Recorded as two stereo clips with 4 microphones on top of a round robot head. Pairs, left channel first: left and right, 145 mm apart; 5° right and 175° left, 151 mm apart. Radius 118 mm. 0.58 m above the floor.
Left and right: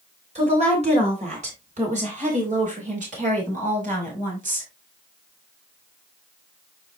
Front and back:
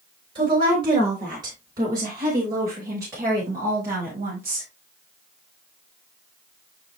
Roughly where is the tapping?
I don't hear tapping.